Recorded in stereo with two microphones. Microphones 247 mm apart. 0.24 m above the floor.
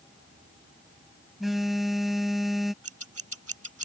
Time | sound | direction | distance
1.4 | a phone buzzing | centre (ahead or behind) | ?
2.8 | scissors | 70° right (ahead or behind) | ?